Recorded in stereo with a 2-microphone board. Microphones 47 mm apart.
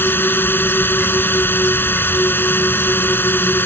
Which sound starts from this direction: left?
A drone, at 0.0 s.